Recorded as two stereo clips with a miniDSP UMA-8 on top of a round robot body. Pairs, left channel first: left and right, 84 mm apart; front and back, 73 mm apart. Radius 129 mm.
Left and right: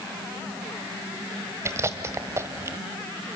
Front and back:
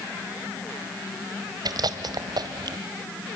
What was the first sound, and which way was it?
Chewing, 150° right.